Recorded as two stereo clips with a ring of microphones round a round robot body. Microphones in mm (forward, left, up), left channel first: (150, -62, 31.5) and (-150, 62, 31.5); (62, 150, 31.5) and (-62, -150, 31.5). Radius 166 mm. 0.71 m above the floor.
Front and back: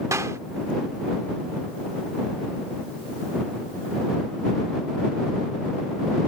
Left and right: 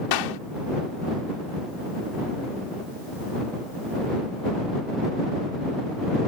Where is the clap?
75° left.